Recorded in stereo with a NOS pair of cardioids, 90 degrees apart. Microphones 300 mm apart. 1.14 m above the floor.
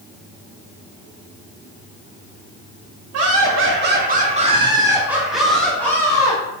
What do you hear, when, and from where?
3.1 s laughter: 55° right, 1.1 m; by 6.4 s 10° left, 1.8 m